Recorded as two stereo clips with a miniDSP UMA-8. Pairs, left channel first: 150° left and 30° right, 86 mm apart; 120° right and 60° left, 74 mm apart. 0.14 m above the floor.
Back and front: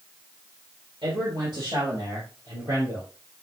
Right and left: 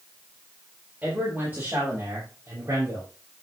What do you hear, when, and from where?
1.0 s a man speaking: 5° right, 5 m; by 3.1 s 20° left, 5 m